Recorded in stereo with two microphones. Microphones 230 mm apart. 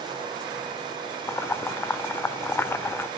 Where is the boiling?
10° left (ahead or behind), 0.5 m.